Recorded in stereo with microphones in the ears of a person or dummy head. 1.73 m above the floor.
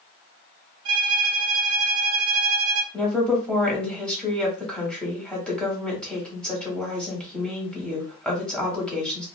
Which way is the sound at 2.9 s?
Centre (ahead or behind).